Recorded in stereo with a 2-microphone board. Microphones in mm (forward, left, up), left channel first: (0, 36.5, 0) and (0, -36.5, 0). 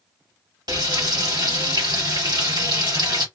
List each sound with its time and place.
0.7 s frying: 75° right (ahead or behind), 1.2 m